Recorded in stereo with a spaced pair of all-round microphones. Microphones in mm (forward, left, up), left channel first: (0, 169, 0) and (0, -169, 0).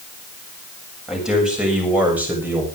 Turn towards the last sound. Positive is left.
turn(degrees=-5)  # may be behind; listen again after turning